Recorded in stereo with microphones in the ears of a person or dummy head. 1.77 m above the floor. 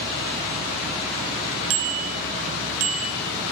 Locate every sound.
1.7 s a bicycle bell: 70° right (ahead or behind), 2.5 m; by 3.3 s 75° right (ahead or behind), 4.5 m